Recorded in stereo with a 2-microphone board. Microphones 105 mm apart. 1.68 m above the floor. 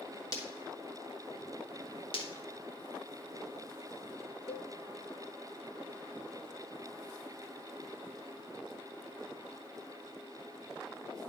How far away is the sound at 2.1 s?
About 2.5 m.